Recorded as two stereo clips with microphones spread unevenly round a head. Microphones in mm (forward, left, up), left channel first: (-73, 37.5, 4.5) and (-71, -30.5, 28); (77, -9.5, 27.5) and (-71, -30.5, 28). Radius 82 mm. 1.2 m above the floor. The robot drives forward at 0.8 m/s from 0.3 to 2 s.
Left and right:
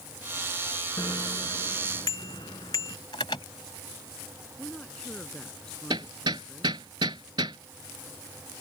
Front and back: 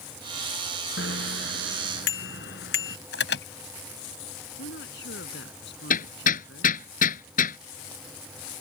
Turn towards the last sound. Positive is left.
turn(degrees=-25)